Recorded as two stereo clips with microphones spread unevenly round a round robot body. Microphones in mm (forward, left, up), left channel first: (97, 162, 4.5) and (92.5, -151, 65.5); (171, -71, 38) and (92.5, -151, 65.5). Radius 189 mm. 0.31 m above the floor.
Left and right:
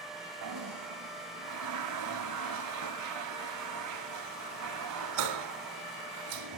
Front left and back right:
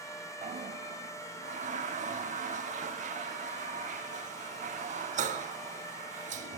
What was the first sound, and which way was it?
A toilet flushing, 140° right.